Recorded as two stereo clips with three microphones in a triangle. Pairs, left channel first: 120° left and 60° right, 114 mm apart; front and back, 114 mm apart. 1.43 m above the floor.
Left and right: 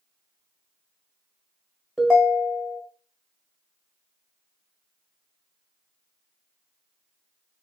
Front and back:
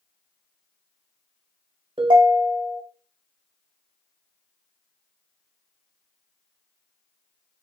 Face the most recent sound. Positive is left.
turn(degrees=-150)